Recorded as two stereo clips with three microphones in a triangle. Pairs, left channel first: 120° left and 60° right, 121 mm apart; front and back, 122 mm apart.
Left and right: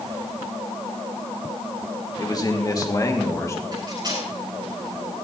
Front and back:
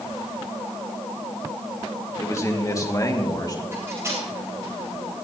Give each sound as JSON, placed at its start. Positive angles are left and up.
{"t": 2.2, "sound": "a man speaking", "azimuth_deg": 65, "distance_m": 1.8}
{"t": 3.7, "sound": "cutlery clinking", "azimuth_deg": -115, "distance_m": 9.0}